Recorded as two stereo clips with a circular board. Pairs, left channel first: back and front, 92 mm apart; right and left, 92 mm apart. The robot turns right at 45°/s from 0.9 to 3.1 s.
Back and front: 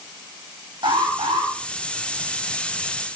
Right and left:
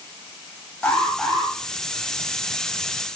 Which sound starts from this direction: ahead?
An alarm, at 0.8 s.